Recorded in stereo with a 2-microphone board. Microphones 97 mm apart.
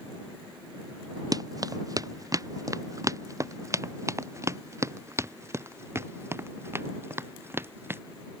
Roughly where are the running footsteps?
Right.